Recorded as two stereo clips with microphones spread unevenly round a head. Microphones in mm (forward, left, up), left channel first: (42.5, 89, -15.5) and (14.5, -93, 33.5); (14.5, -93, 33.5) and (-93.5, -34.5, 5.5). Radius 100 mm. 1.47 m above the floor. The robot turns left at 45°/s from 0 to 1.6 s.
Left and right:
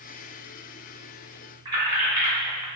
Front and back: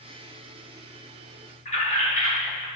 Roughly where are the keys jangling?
Ahead right.